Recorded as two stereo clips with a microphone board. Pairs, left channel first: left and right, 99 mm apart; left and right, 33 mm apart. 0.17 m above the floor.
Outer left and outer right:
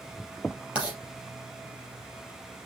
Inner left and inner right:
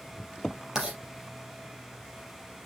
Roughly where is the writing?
Centre.